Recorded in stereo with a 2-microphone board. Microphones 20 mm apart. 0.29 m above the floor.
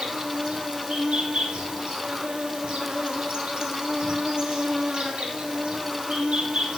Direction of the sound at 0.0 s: 55° right (ahead or behind).